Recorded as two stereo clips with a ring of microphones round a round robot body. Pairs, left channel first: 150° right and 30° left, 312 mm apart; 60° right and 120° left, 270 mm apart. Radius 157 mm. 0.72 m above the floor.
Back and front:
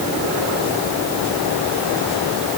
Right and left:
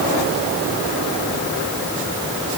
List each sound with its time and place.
Only background noise.